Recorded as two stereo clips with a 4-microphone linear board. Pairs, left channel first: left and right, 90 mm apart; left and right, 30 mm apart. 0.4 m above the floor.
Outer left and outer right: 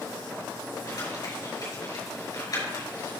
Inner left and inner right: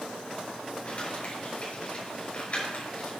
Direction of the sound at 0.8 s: 45° left (ahead or behind).